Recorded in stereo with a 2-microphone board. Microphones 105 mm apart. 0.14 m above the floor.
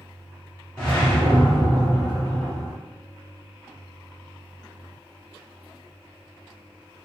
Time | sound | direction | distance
0.8 | a whoosh | 10° left (ahead or behind) | 1.5 m